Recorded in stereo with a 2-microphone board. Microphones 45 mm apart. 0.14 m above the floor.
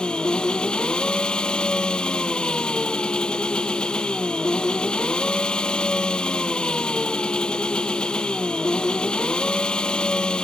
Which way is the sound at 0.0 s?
20° left (ahead or behind).